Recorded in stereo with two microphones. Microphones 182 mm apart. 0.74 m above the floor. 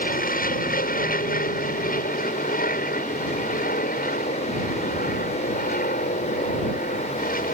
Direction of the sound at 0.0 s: 50° left (ahead or behind).